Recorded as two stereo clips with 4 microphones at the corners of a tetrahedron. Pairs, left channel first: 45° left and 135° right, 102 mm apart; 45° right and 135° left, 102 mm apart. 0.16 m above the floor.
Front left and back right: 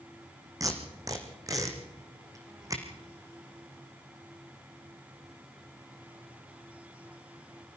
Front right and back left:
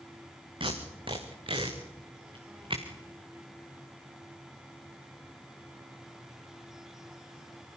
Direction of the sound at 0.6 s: 170° left.